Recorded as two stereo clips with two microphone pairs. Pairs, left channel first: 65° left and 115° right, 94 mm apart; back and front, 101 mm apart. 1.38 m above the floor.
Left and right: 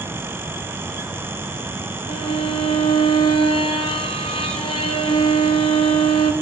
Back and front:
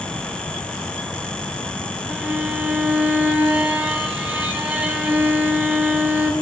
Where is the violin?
75° left, 0.5 m.